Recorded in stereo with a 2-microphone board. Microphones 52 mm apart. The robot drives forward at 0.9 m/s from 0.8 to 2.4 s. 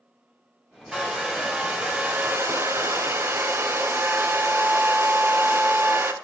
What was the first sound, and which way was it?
A hair dryer, 15° right (ahead or behind).